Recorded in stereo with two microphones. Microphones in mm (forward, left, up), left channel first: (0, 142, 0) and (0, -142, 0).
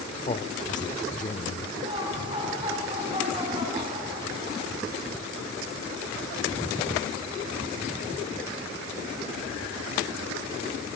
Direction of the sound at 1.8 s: 20° right (ahead or behind).